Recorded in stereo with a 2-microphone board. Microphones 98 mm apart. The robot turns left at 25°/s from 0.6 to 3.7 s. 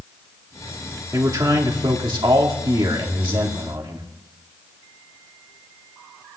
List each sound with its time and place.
1.1 s a man speaking: 50° right, 1.6 m; by 4.1 s 115° right, 1.6 m